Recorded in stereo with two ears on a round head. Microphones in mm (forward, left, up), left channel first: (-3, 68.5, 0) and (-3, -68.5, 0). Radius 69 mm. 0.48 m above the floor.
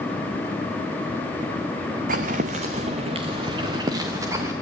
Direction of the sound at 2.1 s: 60° right (ahead or behind).